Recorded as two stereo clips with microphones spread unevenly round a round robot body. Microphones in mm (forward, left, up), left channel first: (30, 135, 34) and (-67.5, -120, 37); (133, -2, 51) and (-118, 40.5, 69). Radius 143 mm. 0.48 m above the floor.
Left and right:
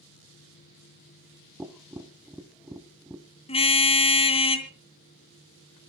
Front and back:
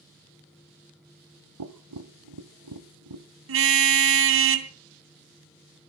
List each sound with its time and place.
1.6 s tapping: 165° left, 1.3 m
3.5 s a car horn: 135° left, 2.5 m